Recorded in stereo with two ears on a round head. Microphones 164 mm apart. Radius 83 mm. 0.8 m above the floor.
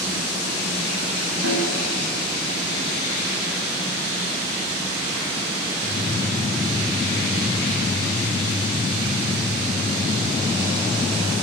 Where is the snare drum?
80° right, 6 m.